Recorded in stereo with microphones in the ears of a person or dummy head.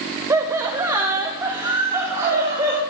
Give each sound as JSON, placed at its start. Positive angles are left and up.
{"t": 0.3, "sound": "laughter", "side_deg": -20, "distance_m": 1.2}